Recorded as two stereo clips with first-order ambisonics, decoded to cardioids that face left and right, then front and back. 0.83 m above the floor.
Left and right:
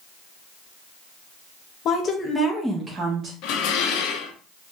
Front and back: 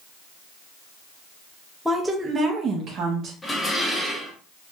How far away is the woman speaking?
About 0.6 m.